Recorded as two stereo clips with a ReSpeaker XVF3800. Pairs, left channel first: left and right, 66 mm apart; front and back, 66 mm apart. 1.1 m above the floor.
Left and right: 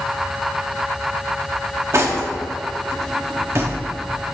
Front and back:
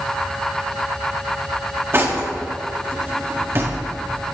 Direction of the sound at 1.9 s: 130° right.